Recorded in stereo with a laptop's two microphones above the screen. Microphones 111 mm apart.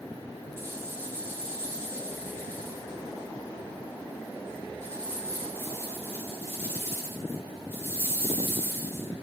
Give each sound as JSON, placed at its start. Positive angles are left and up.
{"t": 0.6, "sound": "a rattle", "side_deg": -20, "distance_m": 0.9}